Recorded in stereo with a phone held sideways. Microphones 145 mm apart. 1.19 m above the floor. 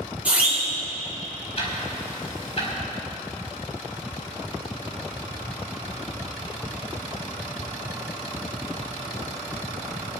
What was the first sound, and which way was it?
A siren, 10° right (ahead or behind).